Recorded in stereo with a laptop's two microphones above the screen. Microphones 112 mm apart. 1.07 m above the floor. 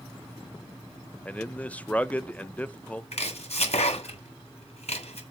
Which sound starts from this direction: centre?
A man speaking, at 1.2 s.